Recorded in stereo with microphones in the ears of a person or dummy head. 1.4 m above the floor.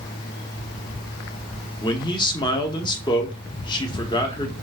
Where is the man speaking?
20° left (ahead or behind), 1.0 m.